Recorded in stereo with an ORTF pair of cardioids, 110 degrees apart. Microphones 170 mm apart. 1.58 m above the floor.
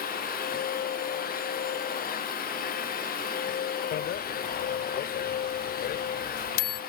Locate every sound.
0.0 s a machine running: 55° left
3.9 s a bicycle bell: 65° left